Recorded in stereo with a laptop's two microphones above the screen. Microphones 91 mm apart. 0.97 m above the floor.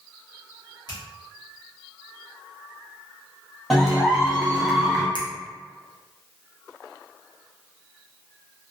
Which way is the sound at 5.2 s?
60° left (ahead or behind).